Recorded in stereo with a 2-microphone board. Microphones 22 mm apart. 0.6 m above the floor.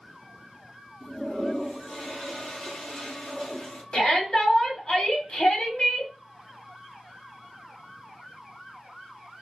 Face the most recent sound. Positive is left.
turn(degrees=45)  # may be behind; listen again after turning